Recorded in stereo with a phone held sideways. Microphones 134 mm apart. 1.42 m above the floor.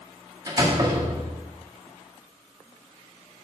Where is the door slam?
25° right (ahead or behind), 1.8 m.